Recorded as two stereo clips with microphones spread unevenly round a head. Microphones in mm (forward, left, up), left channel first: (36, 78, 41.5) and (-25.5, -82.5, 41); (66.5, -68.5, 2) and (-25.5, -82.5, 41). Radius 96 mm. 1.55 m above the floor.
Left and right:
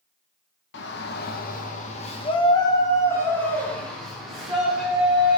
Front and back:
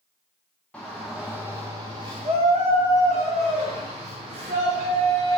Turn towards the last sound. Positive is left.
turn(degrees=165)